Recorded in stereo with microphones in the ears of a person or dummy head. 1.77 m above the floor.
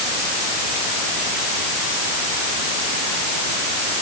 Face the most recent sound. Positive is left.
No sound to turn to.